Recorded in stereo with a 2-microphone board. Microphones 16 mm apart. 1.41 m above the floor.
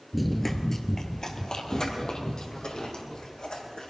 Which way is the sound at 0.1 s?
Centre (ahead or behind).